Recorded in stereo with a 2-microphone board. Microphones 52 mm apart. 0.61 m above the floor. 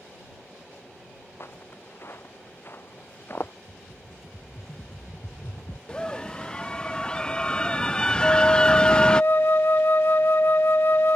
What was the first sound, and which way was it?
Footsteps, 50° left (ahead or behind).